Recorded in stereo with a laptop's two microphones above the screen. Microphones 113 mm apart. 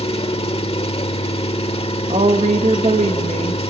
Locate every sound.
0.0 s an engine running: 60° left (ahead or behind), 1.2 m
2.1 s a woman speaking: 80° right, 1.3 m